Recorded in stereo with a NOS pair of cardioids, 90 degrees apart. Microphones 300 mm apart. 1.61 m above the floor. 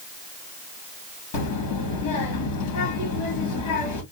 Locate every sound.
1.3 s a child speaking: 65° left, 2.5 m